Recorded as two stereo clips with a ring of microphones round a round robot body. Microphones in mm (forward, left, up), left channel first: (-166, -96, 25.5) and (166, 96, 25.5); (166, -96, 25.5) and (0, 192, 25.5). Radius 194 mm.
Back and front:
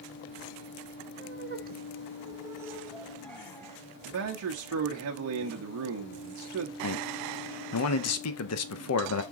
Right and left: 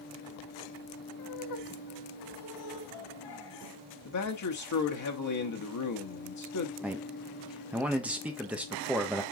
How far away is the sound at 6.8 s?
About 0.9 m.